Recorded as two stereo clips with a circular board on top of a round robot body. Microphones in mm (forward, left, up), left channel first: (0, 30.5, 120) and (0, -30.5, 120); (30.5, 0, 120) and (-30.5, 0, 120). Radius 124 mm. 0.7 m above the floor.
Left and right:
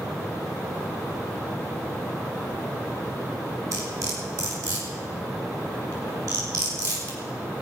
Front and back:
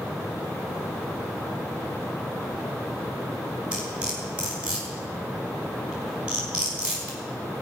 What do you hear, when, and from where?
3.7 s cutlery clinking: 110° right, 5 m